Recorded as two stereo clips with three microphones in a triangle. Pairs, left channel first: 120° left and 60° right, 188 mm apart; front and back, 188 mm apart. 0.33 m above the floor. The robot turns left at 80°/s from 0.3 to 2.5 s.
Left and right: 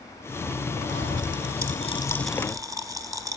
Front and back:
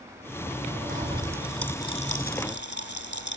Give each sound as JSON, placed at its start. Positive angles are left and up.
{"t": 0.9, "sound": "a pop", "azimuth_deg": 140, "distance_m": 1.2}